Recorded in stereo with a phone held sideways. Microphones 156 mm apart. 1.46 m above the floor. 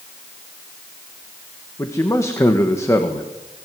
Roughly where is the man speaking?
Centre.